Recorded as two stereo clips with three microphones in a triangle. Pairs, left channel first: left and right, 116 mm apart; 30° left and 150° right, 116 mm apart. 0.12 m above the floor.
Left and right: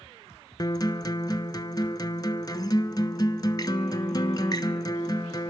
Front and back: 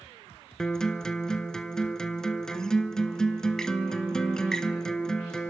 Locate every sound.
0.6 s a guitar: 110° left, 0.5 m